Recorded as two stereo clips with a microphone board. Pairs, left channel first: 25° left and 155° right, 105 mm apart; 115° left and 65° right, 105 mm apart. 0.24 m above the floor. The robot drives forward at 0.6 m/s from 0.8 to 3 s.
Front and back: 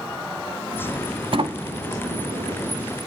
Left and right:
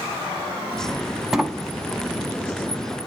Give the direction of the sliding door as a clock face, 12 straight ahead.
5 o'clock.